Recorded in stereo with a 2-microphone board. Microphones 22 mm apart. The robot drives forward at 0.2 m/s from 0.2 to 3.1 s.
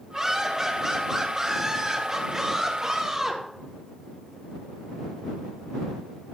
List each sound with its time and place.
0.1 s laughter: 15° right (ahead or behind), 2.5 m; by 3.4 s 10° right (ahead or behind), 3.5 m